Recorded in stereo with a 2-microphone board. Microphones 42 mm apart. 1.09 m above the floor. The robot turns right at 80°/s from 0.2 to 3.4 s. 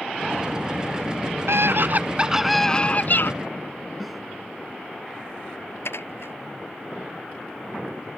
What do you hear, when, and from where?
1.5 s a scream: 85° right; by 3.3 s 60° left
4.0 s a snare drum: centre (ahead or behind)
5.8 s dishes clattering: 80° left